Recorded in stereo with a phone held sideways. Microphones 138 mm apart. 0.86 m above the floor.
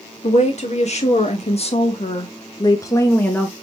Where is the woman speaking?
55° left (ahead or behind), 1.9 m; by 3.5 s 5° left (ahead or behind), 1.0 m.